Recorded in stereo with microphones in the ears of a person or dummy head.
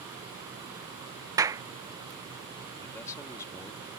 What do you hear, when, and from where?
1.4 s a clap: 15° right (ahead or behind)
2.8 s a man speaking: 20° left (ahead or behind)